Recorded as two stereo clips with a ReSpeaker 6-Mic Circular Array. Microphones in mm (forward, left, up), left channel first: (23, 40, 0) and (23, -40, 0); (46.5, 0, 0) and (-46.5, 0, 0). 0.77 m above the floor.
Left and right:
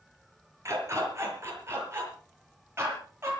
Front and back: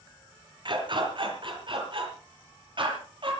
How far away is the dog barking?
About 6 m.